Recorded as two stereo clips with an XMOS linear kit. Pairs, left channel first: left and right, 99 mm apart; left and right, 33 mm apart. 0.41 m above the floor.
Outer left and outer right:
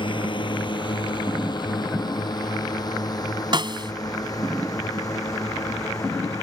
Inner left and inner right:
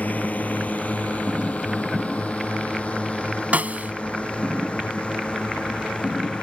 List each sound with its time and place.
0.0 s a drone: 55° left (ahead or behind); by 6.4 s 35° left (ahead or behind)
3.5 s a snare drum: 50° right (ahead or behind)